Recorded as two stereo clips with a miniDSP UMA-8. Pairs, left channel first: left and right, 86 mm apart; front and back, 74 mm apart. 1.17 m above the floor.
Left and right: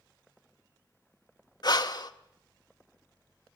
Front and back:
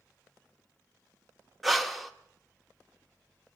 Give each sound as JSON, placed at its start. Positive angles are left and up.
{"t": 1.6, "sound": "breathing", "azimuth_deg": 90, "distance_m": 1.0}